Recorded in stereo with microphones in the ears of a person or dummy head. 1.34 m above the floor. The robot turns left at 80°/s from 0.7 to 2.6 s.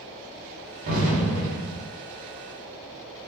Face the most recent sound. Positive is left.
turn(degrees=155)